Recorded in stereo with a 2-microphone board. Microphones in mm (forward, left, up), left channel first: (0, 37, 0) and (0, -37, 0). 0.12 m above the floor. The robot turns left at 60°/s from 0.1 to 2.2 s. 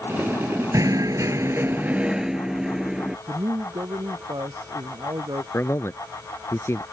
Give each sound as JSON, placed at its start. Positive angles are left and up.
{"t": 0.7, "sound": "knocking", "azimuth_deg": -80}
{"t": 3.3, "sound": "a man speaking", "side_deg": -75}
{"t": 5.5, "sound": "a man speaking", "side_deg": 40}